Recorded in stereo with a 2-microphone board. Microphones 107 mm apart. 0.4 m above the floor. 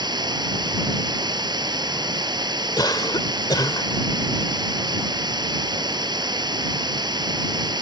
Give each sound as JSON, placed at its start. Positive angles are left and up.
{"t": 0.0, "sound": "running water", "side_deg": -45}
{"t": 2.8, "sound": "a cough", "side_deg": 40}